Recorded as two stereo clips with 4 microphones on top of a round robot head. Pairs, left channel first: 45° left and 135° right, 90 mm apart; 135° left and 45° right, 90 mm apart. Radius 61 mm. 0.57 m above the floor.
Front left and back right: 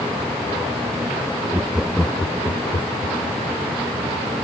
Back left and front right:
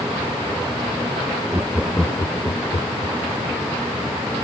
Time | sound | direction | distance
1.5 | laughter | 90° right | ?